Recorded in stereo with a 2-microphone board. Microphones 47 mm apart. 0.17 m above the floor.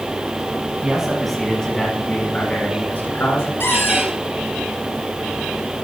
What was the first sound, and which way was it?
A man speaking, 15° right (ahead or behind).